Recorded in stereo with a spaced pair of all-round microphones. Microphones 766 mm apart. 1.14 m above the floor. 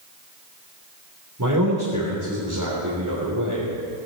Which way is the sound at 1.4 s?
25° right (ahead or behind).